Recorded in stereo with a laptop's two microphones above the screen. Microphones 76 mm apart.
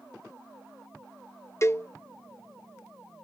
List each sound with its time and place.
1.6 s a cowbell: 35° left (ahead or behind)